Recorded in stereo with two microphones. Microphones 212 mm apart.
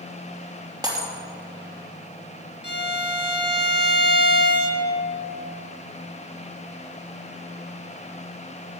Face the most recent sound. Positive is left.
turn(degrees=55)  # may be behind; listen again after turning